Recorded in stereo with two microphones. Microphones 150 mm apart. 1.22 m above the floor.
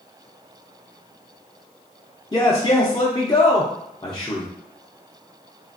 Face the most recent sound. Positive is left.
turn(degrees=25)  # may be behind; listen again after turning